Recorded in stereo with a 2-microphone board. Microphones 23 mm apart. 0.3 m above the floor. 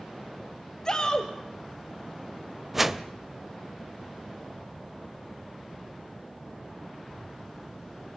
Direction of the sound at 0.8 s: 20° left (ahead or behind).